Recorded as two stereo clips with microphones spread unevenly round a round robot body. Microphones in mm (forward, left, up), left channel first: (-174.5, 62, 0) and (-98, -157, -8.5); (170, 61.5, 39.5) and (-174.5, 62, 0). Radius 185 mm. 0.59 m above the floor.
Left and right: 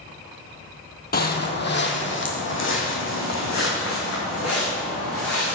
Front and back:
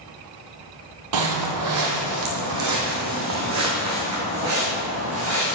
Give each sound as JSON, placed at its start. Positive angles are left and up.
{"t": 1.1, "sound": "footsteps", "azimuth_deg": 155, "distance_m": 1.4}